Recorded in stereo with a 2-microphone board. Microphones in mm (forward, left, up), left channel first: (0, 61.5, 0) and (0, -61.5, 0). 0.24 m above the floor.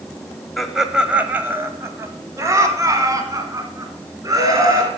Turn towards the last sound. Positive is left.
turn(degrees=-30)  # may be behind; listen again after turning